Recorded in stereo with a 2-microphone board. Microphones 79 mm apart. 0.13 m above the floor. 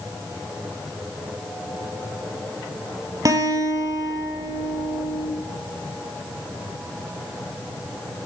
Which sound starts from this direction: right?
A guitar, at 3.2 s.